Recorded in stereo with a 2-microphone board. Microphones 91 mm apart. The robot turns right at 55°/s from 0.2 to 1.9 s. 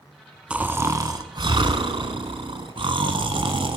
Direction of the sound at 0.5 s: 170° right.